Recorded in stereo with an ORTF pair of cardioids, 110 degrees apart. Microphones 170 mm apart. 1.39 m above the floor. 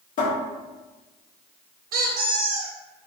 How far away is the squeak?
About 0.8 m.